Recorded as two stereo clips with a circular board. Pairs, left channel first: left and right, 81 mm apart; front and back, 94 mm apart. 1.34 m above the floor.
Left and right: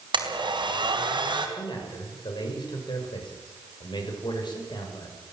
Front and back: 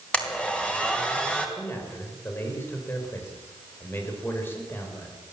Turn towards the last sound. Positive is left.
turn(degrees=65)